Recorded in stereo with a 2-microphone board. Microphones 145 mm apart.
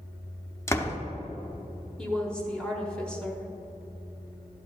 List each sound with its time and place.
0.7 s a door slam: 20° left (ahead or behind), 0.7 m
2.0 s a woman speaking: 5° left (ahead or behind), 1.2 m